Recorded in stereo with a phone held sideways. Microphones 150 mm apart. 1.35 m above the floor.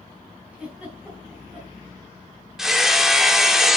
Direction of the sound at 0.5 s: 10° right (ahead or behind).